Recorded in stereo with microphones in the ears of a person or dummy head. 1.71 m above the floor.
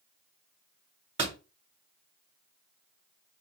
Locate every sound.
1.2 s a door slam: 30° right (ahead or behind), 1.3 m